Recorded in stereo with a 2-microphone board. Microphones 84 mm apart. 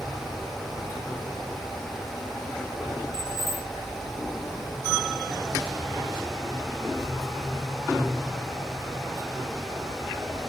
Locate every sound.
3.1 s keys jangling: 75° right (ahead or behind)